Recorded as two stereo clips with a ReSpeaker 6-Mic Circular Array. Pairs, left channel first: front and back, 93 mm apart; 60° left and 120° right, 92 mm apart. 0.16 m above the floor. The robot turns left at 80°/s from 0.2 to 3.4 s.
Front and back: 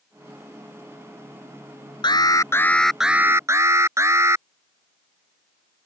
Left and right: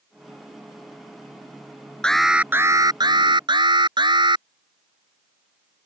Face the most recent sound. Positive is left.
turn(degrees=-125)